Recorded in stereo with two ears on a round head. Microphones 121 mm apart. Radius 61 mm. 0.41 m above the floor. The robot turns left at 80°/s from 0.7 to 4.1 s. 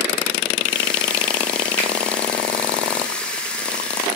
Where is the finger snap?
15° left (ahead or behind), 1.6 m; by 1.9 s 20° left (ahead or behind), 1.6 m.